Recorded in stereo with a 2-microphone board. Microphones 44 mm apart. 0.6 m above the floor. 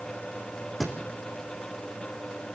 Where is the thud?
5° left (ahead or behind), 3.5 m.